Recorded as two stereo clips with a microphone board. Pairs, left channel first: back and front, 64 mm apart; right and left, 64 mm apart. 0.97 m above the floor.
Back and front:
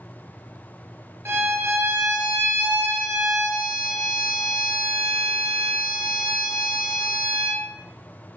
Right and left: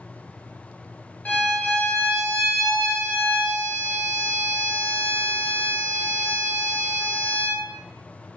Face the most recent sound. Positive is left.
turn(degrees=-40)